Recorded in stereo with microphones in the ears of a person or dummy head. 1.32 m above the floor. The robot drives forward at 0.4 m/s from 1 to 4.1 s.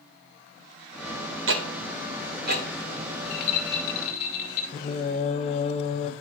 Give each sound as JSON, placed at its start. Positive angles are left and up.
{"t": 1.5, "sound": "ticking", "side_deg": -60, "distance_m": 0.7}
{"t": 3.2, "sound": "a rattle", "side_deg": 60, "distance_m": 1.0}
{"t": 4.7, "sound": "singing", "side_deg": 35, "distance_m": 0.5}